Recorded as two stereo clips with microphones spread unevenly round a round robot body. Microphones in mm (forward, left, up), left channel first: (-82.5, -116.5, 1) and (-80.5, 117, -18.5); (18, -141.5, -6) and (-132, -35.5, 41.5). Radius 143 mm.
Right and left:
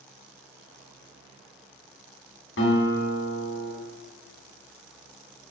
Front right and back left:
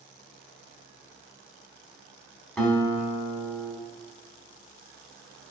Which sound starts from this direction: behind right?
A guitar, at 2.6 s.